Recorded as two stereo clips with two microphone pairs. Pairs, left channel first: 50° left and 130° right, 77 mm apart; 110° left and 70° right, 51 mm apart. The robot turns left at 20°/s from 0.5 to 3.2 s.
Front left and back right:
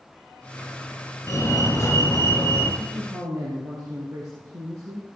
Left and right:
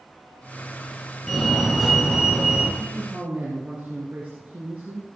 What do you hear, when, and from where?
1.3 s a fire alarm: 30° left, 3 m; by 2.7 s 5° left, 3 m
2.8 s a man speaking: 100° right, 3 m; by 5.1 s 110° right, 3 m